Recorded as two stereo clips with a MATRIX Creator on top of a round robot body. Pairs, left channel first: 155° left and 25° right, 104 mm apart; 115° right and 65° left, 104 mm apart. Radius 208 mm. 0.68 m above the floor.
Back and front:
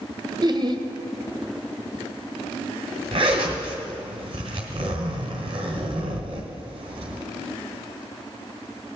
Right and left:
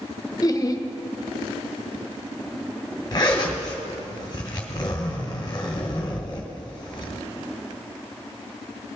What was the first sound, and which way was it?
Laughter, 60° right.